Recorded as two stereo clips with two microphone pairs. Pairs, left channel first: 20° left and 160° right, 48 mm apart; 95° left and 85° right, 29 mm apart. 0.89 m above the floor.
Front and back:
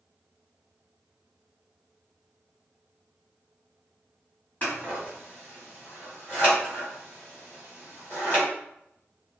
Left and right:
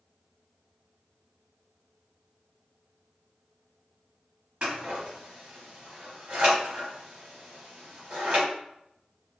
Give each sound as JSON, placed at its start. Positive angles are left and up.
{"t": 4.6, "sound": "scissors", "azimuth_deg": -35, "distance_m": 2.0}